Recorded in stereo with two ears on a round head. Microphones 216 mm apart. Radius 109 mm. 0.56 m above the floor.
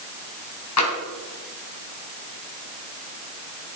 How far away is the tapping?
About 3 m.